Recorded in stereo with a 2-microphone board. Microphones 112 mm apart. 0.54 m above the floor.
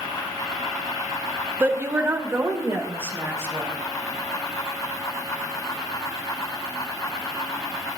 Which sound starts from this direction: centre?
A woman speaking, at 1.6 s.